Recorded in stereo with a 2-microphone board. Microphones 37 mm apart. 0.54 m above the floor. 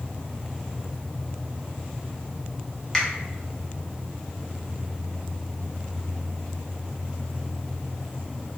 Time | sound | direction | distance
2.9 | a finger snap | 15° left (ahead or behind) | 0.6 m